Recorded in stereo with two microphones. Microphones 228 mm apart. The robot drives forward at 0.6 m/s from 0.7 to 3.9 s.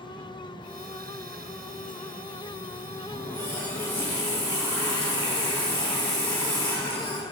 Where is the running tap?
5° left (ahead or behind), 3 m; by 7.2 s 10° left (ahead or behind), 2.5 m.